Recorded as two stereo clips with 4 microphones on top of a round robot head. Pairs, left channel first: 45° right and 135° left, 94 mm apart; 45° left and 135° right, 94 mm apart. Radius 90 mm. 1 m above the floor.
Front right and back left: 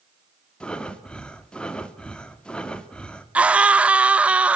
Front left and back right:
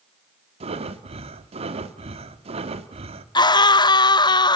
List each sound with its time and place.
0.6 s breathing: 130° right, 2 m
3.4 s a scream: 60° left, 1.0 m